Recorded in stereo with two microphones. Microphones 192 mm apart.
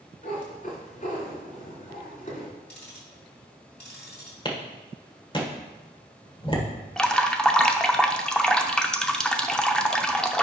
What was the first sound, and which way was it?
A cat meowing, 45° left (ahead or behind).